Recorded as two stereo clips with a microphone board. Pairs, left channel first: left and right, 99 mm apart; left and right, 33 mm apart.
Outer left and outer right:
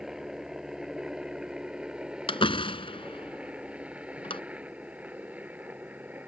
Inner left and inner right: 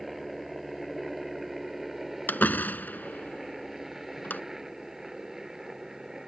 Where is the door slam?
65° left (ahead or behind).